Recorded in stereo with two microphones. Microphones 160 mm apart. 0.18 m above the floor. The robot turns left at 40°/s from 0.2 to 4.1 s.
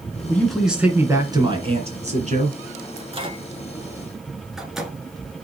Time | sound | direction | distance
0.3 | a man speaking | 10° left | 2 m
3.0 | a microwave | 40° right (ahead or behind) | 1.6 m